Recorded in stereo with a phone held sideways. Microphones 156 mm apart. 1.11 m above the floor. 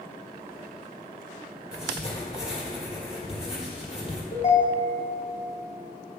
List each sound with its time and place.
1.7 s writing: 40° left (ahead or behind), 1.7 m
4.3 s a ringtone: 50° left (ahead or behind), 1.4 m